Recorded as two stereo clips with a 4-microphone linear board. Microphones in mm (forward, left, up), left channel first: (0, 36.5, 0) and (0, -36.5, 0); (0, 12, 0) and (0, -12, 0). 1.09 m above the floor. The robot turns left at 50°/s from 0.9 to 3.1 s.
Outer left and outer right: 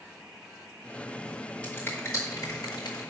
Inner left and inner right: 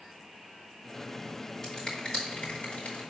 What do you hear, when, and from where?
1.6 s a finger snap: 15° left (ahead or behind), 4.5 m; by 3.0 s 85° left, 4.5 m